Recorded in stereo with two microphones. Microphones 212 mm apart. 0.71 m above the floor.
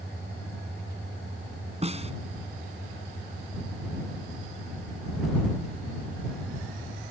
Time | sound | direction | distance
1.8 | a snare drum | 30° right (ahead or behind) | ?